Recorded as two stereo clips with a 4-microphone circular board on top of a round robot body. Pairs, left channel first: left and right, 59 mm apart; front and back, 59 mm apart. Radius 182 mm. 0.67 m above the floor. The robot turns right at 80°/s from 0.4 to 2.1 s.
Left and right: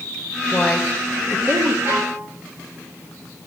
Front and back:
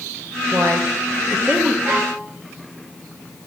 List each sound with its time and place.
0.5 s a woman speaking: 155° left, 1.5 m; by 1.8 s 105° right, 1.5 m
1.9 s a violin: 125° right, 3.5 m; by 2.2 s 105° right, 3.5 m